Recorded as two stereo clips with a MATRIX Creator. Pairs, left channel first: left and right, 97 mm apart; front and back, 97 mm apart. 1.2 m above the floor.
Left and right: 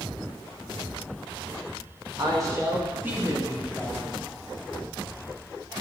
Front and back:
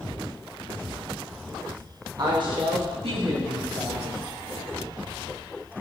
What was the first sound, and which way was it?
A woman speaking, 135° right.